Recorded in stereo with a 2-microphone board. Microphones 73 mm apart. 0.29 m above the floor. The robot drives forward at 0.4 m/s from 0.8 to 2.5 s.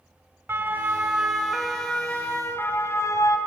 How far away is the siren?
About 2.5 m.